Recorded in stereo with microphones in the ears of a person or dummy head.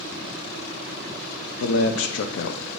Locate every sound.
1.6 s a man speaking: 80° left, 0.5 m